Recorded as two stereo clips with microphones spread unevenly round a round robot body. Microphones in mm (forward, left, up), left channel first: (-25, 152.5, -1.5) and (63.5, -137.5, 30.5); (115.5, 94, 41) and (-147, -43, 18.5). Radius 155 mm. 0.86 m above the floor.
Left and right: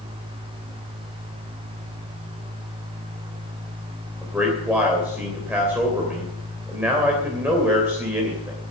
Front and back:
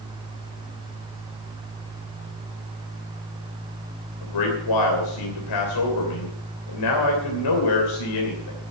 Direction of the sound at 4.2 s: 10° left.